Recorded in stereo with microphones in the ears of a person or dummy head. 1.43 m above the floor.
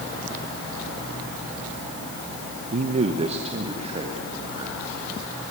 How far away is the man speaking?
About 0.6 m.